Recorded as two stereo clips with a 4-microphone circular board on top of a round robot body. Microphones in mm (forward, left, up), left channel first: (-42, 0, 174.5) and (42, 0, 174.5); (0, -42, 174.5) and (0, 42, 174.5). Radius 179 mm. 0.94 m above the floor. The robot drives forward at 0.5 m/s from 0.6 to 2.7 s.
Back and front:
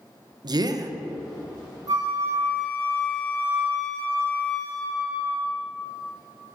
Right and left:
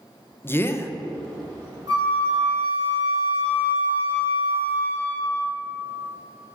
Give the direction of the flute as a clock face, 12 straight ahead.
10 o'clock.